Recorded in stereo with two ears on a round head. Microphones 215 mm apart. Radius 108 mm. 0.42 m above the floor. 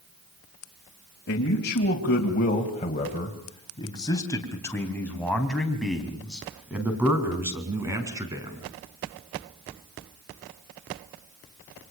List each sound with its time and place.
1.3 s a man speaking: 50° left (ahead or behind), 3 m; by 8.6 s 15° right (ahead or behind), 5.5 m